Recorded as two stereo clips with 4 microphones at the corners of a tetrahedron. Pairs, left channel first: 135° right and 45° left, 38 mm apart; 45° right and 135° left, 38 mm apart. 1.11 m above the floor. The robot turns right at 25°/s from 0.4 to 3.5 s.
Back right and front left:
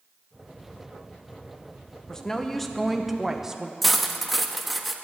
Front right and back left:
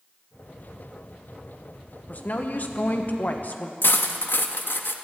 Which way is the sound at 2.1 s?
65° right.